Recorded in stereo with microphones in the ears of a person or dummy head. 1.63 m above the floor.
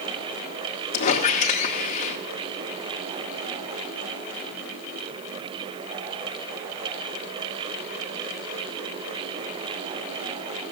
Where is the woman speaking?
No woman speaking in this recording.